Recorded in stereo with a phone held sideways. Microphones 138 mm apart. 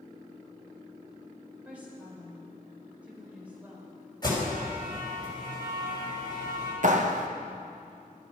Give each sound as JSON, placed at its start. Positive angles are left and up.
{"t": 1.6, "sound": "a woman speaking", "side_deg": -10, "distance_m": 5.0}
{"t": 4.2, "sound": "an alarm", "side_deg": 30, "distance_m": 6.0}
{"t": 6.8, "sound": "a clap", "side_deg": -60, "distance_m": 1.2}